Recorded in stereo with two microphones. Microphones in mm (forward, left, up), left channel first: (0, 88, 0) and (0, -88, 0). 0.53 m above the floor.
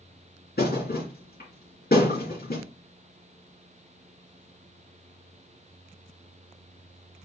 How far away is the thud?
About 2.5 m.